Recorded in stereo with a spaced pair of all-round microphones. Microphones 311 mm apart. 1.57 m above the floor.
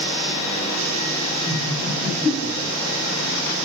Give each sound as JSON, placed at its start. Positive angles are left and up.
{"t": 1.5, "sound": "laughter", "side_deg": -35, "distance_m": 9.0}